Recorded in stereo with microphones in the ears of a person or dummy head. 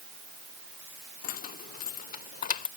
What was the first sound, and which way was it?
Keys jangling, 50° left (ahead or behind).